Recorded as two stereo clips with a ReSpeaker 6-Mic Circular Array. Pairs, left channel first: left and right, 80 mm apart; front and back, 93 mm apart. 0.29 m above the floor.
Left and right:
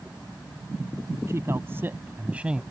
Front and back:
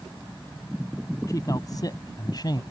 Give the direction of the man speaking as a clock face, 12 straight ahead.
1 o'clock.